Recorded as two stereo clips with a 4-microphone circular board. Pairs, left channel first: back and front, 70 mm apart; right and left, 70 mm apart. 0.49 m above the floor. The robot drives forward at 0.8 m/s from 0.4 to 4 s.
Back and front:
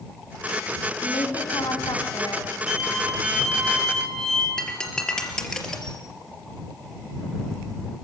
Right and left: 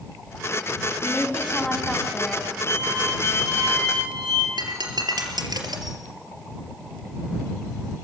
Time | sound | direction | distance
1.0 | a woman speaking | 170° right | 4 m
2.7 | a violin | 85° left | 6.5 m
4.6 | breaking glass | 100° left | 3.5 m